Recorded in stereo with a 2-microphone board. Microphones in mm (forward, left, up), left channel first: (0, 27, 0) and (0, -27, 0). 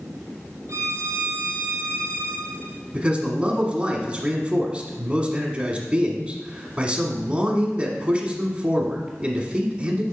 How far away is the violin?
About 1.1 m.